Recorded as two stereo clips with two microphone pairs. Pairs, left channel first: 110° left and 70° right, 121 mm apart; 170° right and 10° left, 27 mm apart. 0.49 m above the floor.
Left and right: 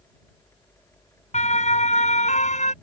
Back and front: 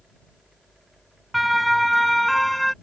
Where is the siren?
100° left; by 2.7 s 110° left.